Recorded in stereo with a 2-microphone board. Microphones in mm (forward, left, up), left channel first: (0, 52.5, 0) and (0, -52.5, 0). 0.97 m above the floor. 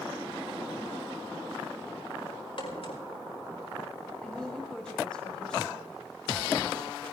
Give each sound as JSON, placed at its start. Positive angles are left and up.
{"t": 2.6, "sound": "a crack", "side_deg": 60, "distance_m": 5.0}
{"t": 4.2, "sound": "a woman speaking", "side_deg": 10, "distance_m": 6.0}